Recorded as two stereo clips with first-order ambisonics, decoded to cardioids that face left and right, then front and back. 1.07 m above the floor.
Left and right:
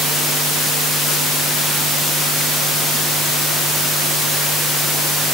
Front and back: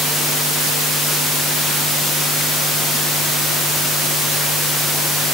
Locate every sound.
Only background noise.